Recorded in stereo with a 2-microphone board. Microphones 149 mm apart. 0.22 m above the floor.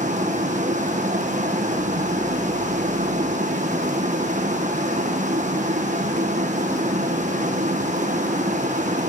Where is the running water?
55° right (ahead or behind), 3 m.